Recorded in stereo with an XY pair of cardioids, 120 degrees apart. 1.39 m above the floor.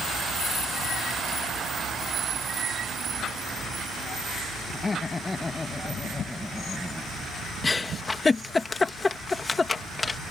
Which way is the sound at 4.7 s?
25° left.